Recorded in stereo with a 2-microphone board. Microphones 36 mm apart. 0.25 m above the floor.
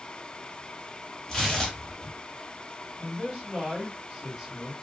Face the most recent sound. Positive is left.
turn(degrees=-15)  # may be behind; listen again after turning